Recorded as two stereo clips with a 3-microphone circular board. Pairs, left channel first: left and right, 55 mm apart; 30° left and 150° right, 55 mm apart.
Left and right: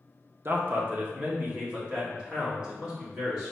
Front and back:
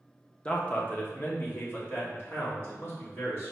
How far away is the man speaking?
About 0.8 m.